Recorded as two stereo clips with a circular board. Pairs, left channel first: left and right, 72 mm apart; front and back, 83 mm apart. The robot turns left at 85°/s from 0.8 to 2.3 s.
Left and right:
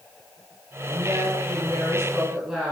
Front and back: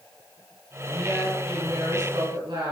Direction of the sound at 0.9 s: 50° right.